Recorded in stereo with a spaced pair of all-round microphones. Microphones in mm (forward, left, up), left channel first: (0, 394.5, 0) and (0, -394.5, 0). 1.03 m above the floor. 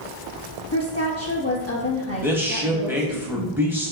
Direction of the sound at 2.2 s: 5° right (ahead or behind).